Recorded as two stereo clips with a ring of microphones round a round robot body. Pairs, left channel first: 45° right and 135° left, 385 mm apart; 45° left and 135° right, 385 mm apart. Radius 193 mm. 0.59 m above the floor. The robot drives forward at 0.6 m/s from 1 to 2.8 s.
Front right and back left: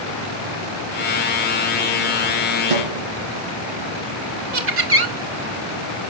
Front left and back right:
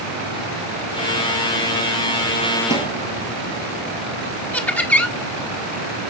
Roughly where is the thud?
Behind left.